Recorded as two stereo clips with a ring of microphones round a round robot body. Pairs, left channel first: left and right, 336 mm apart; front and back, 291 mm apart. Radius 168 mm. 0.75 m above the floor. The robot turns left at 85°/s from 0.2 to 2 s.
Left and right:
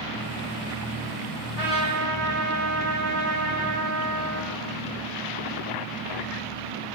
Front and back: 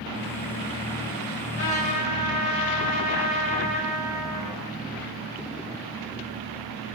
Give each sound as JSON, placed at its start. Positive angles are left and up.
{"t": 1.6, "sound": "a trumpet", "azimuth_deg": -110, "distance_m": 1.4}